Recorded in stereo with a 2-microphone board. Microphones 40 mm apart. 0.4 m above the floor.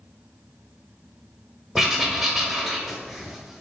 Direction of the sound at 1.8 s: 10° right (ahead or behind).